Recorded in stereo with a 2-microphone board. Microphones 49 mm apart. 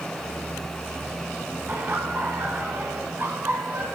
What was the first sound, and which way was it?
Laughter, 45° right (ahead or behind).